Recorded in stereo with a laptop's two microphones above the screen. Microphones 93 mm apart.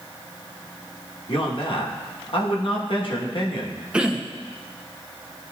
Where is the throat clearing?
10° right (ahead or behind), 0.6 m.